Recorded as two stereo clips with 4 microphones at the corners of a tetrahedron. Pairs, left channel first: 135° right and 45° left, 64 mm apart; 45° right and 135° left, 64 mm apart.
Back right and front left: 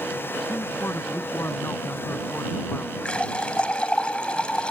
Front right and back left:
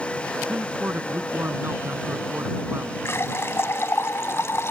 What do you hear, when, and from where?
0.5 s a man speaking: straight behind
3.0 s a running tap: 70° right